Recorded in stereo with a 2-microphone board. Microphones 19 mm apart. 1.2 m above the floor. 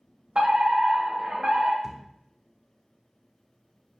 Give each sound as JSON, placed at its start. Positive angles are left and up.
{"t": 0.3, "sound": "a fire alarm", "side_deg": -55, "distance_m": 2.5}
{"t": 1.8, "sound": "a thud", "side_deg": -25, "distance_m": 1.0}